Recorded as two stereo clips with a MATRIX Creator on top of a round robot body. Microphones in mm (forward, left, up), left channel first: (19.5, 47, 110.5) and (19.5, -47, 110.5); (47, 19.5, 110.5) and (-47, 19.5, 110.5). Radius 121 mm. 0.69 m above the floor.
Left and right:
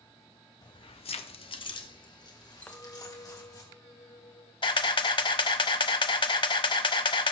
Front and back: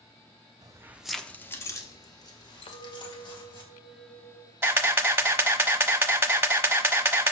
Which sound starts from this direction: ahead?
A clink, at 2.6 s.